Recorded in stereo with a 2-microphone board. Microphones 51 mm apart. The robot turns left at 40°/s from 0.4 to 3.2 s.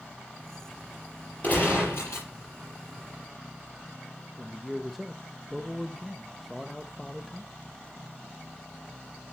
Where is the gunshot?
145° left, 5.5 m; by 2.3 s 110° left, 5.5 m.